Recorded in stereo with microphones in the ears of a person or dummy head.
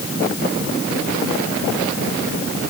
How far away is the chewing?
No chewing in this recording.